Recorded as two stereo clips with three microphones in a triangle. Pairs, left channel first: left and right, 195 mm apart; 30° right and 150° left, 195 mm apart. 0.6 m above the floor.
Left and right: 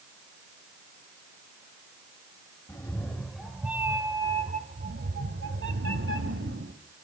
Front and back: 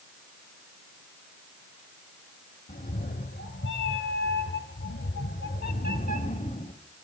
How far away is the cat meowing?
About 1.3 m.